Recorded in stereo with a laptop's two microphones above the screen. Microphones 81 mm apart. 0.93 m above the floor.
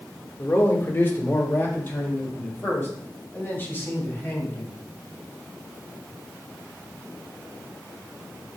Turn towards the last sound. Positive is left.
turn(degrees=30)  # may be behind; listen again after turning